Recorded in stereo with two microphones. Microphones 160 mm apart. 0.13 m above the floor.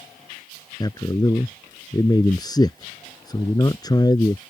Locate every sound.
0.8 s a man speaking: 25° left (ahead or behind)